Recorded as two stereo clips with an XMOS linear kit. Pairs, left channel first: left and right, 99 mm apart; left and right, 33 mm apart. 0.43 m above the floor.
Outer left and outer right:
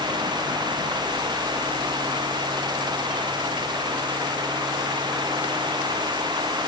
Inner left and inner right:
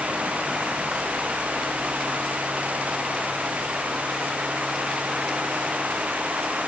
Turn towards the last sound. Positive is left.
No sound to turn to.